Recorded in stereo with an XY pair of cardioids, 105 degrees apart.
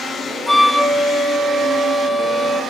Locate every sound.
0.5 s a flute: 5° left, 1.6 m